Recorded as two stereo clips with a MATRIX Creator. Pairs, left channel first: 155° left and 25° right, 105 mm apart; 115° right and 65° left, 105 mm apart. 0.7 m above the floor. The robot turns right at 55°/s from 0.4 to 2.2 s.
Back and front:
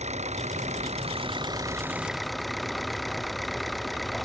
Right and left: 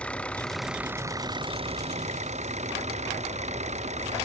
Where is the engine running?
30° right; by 4.2 s 65° left.